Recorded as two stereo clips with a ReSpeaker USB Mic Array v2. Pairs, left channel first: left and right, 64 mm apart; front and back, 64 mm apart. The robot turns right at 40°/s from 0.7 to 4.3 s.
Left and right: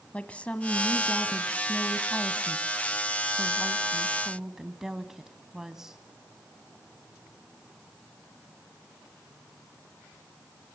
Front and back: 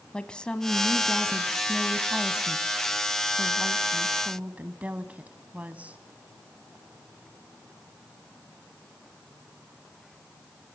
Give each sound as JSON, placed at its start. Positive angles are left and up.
{"t": 0.1, "sound": "a woman speaking", "azimuth_deg": 55, "distance_m": 1.0}